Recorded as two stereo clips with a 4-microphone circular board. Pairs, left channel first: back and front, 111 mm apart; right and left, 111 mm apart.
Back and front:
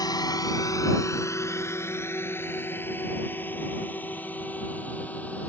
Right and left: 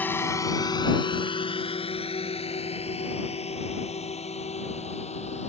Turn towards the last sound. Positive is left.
turn(degrees=-105)